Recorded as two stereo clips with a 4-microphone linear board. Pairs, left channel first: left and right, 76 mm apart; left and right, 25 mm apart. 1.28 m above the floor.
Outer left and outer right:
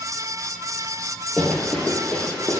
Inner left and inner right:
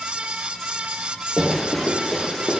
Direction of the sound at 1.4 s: Centre (ahead or behind).